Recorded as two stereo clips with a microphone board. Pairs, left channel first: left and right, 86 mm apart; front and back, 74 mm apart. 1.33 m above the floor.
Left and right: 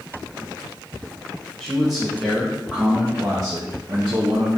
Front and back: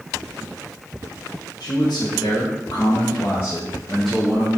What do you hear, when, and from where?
1.6 s a man speaking: 10° left, 1.3 m; by 4.5 s 100° right, 0.8 m